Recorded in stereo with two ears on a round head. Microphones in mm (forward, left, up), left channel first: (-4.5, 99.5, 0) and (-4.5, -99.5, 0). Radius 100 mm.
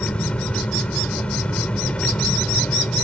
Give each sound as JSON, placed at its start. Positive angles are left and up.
{"t": 0.0, "sound": "an engine running", "side_deg": 5}